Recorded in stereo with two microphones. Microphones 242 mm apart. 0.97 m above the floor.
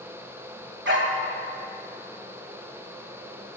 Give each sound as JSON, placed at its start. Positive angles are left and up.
{"t": 0.8, "sound": "a dog barking", "side_deg": -50, "distance_m": 1.2}